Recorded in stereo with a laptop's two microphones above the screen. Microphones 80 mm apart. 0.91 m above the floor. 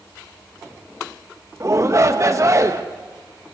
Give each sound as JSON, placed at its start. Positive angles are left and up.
{"t": 1.6, "sound": "a shout", "side_deg": -40, "distance_m": 1.0}